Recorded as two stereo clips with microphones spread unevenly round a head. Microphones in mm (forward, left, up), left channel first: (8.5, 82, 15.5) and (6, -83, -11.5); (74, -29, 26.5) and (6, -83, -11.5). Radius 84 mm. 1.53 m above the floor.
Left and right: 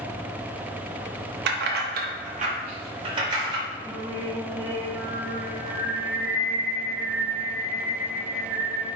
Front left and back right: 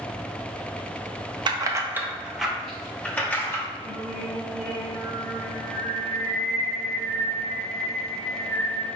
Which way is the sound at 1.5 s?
90° right.